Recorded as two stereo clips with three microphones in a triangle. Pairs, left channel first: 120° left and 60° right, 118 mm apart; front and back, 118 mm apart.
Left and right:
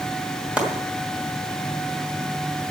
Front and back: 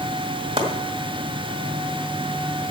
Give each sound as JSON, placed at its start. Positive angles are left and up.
{"t": 0.6, "sound": "chopping", "azimuth_deg": -140, "distance_m": 2.0}